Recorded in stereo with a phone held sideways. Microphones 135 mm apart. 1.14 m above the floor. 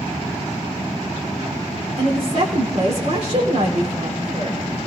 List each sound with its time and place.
2.0 s a woman speaking: 55° right (ahead or behind), 3.5 m